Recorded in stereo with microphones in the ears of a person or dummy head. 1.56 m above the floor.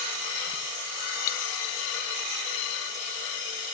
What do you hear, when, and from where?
1.3 s breaking glass: 50° left (ahead or behind)